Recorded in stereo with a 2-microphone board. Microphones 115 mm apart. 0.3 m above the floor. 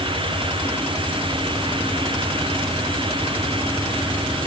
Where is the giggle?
I don't hear a giggle.